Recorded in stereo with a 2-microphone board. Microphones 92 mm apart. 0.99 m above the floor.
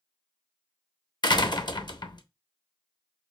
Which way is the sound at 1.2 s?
50° left (ahead or behind).